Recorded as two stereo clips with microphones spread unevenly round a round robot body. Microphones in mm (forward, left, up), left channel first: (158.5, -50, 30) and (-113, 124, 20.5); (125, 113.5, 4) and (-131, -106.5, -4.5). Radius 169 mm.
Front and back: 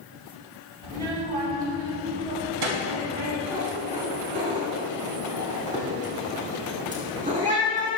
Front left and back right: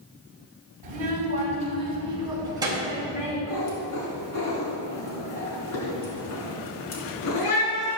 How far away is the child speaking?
About 3.5 m.